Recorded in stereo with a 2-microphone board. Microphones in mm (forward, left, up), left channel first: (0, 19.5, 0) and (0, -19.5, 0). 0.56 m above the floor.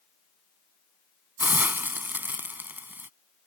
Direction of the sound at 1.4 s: 60° right (ahead or behind).